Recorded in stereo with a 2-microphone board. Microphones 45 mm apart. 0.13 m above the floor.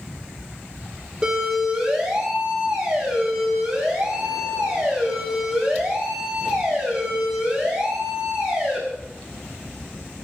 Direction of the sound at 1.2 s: 10° right (ahead or behind).